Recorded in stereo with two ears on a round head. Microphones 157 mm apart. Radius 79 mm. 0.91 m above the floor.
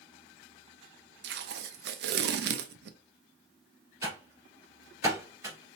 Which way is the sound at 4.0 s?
20° right (ahead or behind).